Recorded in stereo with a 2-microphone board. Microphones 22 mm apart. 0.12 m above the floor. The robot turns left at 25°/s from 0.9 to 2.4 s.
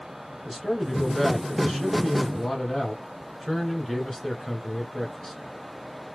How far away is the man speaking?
About 1.4 m.